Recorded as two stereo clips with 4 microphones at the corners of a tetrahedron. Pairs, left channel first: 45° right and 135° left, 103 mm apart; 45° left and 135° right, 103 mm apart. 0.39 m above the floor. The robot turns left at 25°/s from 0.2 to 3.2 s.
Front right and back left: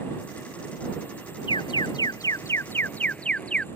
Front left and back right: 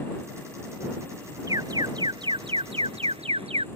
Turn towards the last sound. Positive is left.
turn(degrees=-125)